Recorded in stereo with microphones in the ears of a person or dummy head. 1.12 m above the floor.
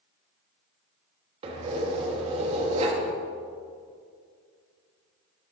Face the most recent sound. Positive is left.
turn(degrees=-30)  # may be behind; listen again after turning